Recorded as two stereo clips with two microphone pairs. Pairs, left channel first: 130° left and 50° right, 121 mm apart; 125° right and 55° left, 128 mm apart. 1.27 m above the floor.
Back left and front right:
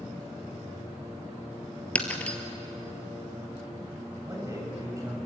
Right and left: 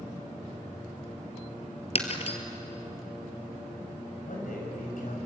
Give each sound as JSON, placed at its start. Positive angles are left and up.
{"t": 1.9, "sound": "breaking glass", "azimuth_deg": -150, "distance_m": 2.0}
{"t": 4.2, "sound": "a man speaking", "azimuth_deg": -115, "distance_m": 7.0}